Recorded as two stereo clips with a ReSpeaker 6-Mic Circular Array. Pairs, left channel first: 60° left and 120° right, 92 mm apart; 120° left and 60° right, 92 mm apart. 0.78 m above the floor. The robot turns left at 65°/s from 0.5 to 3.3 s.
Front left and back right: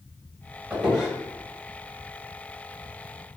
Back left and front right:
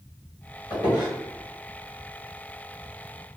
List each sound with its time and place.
0.7 s a squeak: 165° left, 1.5 m; by 1.1 s 140° left, 1.5 m